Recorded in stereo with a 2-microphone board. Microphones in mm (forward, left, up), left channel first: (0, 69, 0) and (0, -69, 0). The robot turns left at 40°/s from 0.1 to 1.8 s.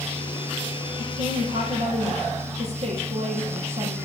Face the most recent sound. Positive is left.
turn(degrees=-125)